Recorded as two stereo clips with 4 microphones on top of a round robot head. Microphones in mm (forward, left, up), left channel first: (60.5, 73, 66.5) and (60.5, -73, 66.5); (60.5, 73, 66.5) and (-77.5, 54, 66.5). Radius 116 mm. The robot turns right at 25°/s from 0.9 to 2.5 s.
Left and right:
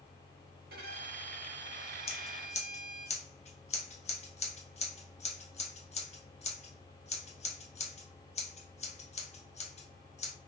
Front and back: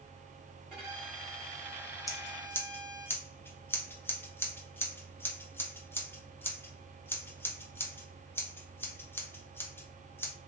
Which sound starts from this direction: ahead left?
Scissors, at 2.1 s.